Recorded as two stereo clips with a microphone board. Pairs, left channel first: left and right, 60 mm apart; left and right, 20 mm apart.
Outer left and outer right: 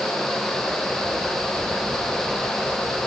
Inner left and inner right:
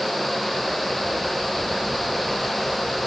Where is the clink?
No clink in this recording.